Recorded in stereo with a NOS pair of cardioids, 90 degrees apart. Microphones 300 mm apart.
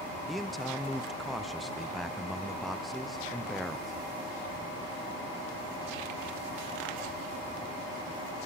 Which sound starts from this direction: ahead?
A man speaking, at 0.3 s.